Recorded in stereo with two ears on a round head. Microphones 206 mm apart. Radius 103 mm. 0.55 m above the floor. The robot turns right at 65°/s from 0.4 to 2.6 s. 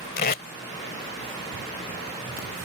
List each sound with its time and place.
0.2 s tape being pulled: 40° left (ahead or behind); by 0.4 s 45° left (ahead or behind)